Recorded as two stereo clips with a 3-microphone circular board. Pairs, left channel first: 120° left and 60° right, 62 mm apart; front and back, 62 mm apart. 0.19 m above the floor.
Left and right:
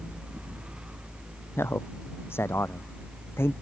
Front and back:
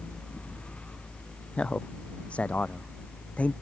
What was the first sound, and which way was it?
A man speaking, 70° left.